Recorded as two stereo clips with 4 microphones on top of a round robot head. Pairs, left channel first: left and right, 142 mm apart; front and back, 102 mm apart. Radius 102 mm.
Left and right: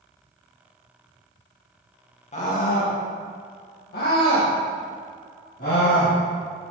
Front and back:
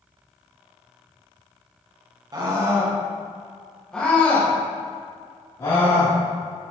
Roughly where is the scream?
Behind left.